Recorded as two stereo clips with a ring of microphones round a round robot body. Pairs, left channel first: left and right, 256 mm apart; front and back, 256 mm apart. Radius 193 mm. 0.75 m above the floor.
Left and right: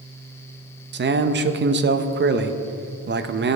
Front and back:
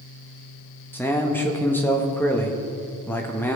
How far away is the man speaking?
About 0.8 m.